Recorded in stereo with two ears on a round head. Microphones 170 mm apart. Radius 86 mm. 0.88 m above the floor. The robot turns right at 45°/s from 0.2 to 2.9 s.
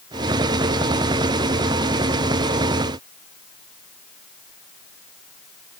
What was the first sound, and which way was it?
Only background noise.